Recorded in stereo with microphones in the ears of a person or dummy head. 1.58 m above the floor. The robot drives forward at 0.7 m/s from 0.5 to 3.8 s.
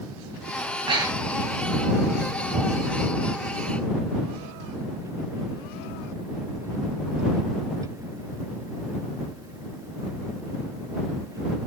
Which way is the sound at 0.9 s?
25° right (ahead or behind).